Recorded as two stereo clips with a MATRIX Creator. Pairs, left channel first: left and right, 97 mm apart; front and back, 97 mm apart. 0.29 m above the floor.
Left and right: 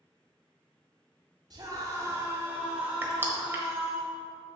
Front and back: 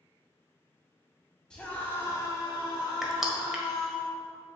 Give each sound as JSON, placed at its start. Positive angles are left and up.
{"t": 1.5, "sound": "a scream", "azimuth_deg": -80, "distance_m": 2.0}
{"t": 3.0, "sound": "crushing", "azimuth_deg": -100, "distance_m": 1.2}